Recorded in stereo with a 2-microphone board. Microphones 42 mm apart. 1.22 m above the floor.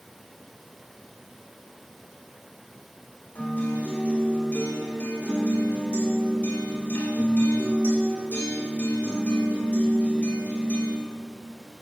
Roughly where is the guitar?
Left.